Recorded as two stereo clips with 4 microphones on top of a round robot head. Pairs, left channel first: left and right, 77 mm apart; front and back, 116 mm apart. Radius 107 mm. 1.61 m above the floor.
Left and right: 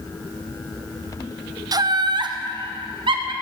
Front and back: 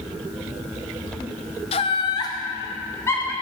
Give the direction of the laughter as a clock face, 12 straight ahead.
2 o'clock.